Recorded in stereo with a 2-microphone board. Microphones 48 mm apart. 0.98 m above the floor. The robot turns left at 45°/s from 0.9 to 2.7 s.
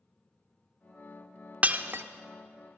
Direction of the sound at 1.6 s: 30° right (ahead or behind).